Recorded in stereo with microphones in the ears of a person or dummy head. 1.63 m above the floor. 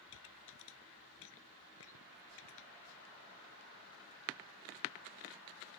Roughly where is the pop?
Left.